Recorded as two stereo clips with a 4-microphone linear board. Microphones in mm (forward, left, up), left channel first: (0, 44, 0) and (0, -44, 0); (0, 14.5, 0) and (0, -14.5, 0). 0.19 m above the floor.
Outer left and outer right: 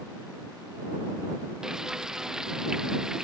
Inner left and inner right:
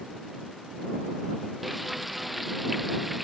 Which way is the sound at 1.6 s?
5° right (ahead or behind).